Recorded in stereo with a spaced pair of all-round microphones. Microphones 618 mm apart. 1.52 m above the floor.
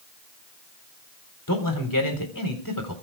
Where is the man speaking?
30° left (ahead or behind), 4 m.